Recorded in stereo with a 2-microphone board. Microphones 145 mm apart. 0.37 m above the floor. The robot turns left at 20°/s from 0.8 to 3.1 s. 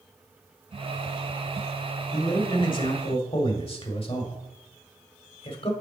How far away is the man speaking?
About 1.2 m.